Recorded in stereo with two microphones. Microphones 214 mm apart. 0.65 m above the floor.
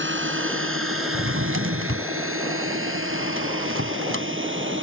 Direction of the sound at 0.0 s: 65° right (ahead or behind).